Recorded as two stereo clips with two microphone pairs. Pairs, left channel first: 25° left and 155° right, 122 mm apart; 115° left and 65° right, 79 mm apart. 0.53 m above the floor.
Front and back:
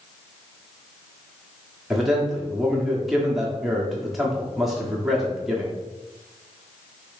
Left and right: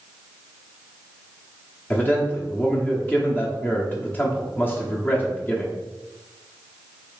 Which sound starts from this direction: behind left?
A man speaking, at 1.9 s.